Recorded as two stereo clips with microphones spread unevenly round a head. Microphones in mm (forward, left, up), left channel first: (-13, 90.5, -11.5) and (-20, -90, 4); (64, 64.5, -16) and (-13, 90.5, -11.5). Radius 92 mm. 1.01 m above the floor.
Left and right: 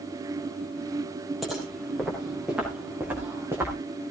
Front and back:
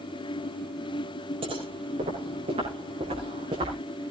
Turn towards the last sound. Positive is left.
turn(degrees=-170)